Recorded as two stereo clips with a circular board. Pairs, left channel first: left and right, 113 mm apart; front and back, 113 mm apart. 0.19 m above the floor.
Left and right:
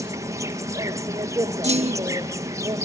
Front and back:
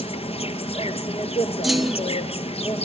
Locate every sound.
0.0 s an insect: 30° right, 1.3 m
1.6 s a clunk: 90° right, 0.6 m